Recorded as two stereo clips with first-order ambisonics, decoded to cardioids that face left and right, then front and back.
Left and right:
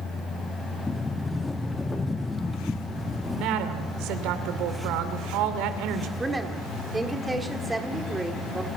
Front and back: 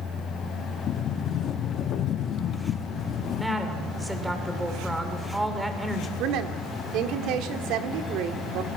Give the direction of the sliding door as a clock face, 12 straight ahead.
11 o'clock.